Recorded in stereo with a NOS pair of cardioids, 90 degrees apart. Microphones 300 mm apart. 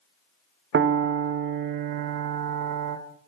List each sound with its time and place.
0.7 s a piano: 40° right, 1.3 m